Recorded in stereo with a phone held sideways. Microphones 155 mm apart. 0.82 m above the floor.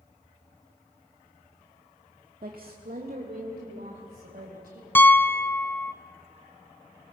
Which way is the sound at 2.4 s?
70° right (ahead or behind).